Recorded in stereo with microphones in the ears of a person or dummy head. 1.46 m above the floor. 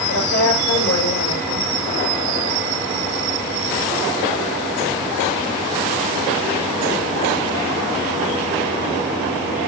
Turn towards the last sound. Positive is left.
turn(degrees=90)